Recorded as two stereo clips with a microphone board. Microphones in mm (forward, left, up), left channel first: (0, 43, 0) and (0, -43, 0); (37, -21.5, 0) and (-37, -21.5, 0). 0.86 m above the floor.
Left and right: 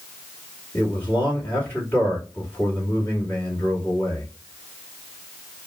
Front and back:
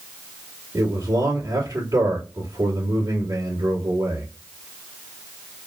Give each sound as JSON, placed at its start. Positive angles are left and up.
{"t": 0.7, "sound": "a man speaking", "azimuth_deg": 160, "distance_m": 2.0}